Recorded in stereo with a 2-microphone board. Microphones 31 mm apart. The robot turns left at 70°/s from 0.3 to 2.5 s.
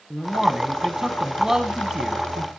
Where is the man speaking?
10° right (ahead or behind), 1.3 m; by 2.5 s centre (ahead or behind), 1.3 m.